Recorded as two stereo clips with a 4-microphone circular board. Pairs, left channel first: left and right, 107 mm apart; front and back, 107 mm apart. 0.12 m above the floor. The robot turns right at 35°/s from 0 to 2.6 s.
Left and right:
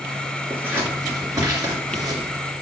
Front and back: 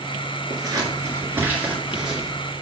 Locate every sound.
0.5 s scissors: 155° right, 2 m; by 2.3 s 90° right, 2 m